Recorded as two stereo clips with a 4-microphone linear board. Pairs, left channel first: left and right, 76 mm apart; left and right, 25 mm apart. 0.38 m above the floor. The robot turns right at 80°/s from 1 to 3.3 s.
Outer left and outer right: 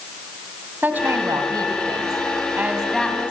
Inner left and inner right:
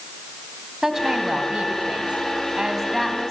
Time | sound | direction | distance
0.8 | a woman speaking | 155° right | 3 m